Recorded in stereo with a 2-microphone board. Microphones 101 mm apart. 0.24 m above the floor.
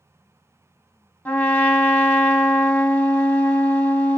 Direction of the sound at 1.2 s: 15° left (ahead or behind).